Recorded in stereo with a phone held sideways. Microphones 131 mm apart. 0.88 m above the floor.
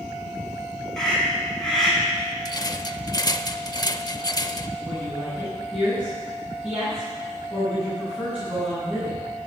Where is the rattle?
30° left (ahead or behind), 0.7 m.